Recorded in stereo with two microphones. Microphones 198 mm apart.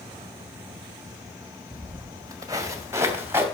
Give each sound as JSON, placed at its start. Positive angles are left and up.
{"t": 1.7, "sound": "footsteps", "side_deg": -25, "distance_m": 1.8}